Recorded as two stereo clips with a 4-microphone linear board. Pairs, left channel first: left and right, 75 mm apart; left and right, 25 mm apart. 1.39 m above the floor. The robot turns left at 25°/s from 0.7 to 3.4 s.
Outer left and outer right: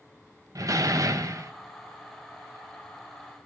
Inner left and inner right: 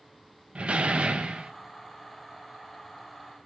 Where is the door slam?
50° right (ahead or behind), 0.7 m; by 1.5 s 45° right (ahead or behind), 0.7 m.